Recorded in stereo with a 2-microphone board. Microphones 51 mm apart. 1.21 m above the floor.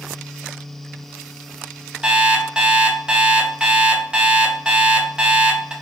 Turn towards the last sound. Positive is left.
turn(degrees=-15)  # may be behind; listen again after turning